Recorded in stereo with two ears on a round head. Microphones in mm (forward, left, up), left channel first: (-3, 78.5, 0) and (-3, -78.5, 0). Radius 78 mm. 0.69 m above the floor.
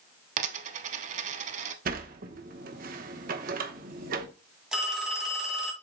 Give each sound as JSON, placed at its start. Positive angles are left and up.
{"t": 0.4, "sound": "a dropped coin", "side_deg": -45, "distance_m": 0.8}
{"t": 1.9, "sound": "a sliding door", "side_deg": -50, "distance_m": 1.0}
{"t": 4.7, "sound": "a phone ringing", "side_deg": -5, "distance_m": 2.5}